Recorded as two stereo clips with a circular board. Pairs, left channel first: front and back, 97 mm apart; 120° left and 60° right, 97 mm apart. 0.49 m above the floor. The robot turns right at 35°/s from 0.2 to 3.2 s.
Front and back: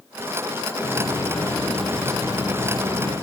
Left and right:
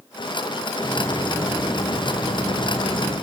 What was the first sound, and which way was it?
A hiss, 50° left.